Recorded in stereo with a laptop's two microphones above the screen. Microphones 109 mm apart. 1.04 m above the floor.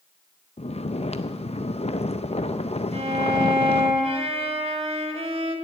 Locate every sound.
0.6 s snoring: 70° left (ahead or behind), 0.5 m
2.9 s a violin: 70° right (ahead or behind), 2 m